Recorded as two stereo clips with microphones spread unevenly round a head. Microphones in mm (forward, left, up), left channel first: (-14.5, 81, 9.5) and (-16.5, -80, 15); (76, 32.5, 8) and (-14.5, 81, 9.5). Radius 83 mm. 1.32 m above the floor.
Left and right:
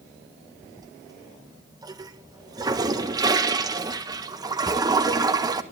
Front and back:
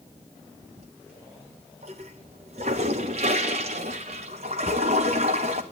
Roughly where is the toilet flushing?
Behind.